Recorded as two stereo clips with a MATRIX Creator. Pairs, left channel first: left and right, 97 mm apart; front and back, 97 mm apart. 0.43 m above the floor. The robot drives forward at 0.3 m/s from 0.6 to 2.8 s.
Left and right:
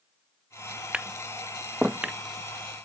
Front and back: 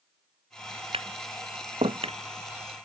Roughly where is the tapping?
Behind.